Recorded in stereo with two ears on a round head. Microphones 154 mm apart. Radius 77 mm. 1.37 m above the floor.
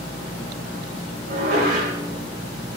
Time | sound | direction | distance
1.3 | dishes clattering | 60° right (ahead or behind) | 4.5 m